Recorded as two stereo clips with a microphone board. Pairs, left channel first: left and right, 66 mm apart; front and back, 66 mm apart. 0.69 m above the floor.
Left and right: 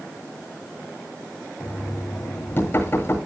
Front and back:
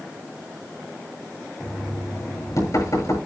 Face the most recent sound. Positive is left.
turn(degrees=30)